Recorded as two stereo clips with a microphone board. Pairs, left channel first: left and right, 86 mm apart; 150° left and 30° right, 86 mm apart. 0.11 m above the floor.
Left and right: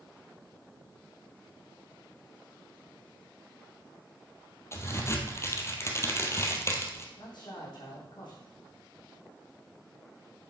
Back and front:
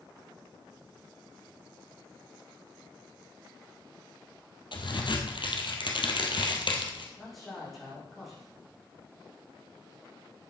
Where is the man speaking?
60° left, 7 m.